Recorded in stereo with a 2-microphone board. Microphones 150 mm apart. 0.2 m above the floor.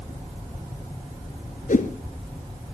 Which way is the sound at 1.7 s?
60° left (ahead or behind).